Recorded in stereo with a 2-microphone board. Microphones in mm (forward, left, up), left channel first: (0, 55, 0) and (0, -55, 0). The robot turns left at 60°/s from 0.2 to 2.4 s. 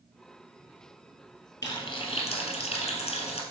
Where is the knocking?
No knocking in this recording.